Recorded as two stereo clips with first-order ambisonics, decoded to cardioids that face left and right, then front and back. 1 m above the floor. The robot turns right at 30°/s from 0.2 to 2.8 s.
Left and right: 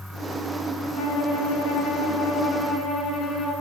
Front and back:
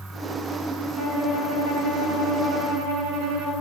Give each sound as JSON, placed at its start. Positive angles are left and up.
{"t": 1.0, "sound": "a violin", "azimuth_deg": 110, "distance_m": 1.2}